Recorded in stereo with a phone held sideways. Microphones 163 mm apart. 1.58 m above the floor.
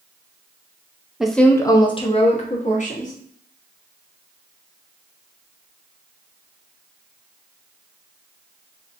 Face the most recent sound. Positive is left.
turn(degrees=55)  # may be behind; listen again after turning